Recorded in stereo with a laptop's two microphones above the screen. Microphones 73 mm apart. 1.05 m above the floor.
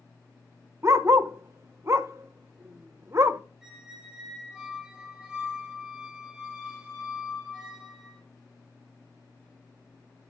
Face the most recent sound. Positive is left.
turn(degrees=-10)  # may be behind; listen again after turning